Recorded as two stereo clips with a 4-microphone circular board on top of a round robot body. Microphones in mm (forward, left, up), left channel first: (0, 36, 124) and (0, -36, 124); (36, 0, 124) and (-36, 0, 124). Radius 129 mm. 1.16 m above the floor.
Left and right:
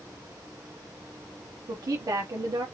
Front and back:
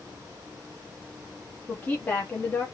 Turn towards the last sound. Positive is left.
turn(degrees=-65)